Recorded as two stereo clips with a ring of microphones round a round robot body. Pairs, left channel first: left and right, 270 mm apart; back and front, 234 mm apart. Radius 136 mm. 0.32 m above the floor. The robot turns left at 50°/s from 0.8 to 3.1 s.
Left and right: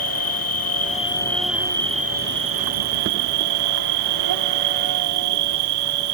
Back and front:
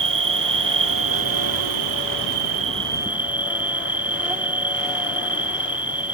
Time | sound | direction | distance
0.0 | an insect | 35° left | ?